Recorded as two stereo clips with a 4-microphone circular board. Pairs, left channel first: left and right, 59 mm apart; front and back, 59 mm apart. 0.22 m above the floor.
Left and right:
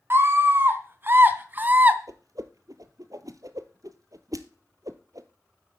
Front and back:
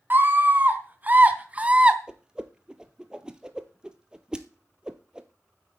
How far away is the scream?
About 2.5 m.